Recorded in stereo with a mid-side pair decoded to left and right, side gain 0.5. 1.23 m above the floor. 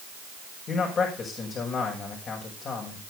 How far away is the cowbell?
I don't hear a cowbell.